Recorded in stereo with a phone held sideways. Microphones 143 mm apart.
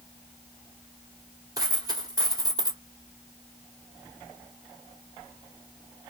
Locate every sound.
1.6 s a dropped coin: 25° right (ahead or behind), 1.8 m